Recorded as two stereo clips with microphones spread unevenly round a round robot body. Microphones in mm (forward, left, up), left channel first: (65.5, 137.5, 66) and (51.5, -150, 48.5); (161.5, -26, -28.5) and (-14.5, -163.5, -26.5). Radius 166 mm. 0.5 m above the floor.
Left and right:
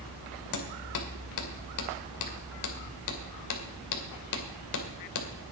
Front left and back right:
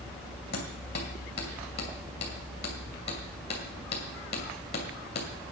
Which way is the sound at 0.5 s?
95° left.